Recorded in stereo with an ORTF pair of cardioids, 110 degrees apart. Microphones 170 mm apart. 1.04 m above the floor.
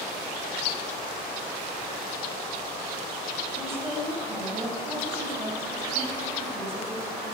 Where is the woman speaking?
15° right, 7 m.